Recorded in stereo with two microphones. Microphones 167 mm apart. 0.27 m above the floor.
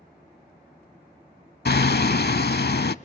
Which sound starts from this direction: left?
Hammering, at 1.6 s.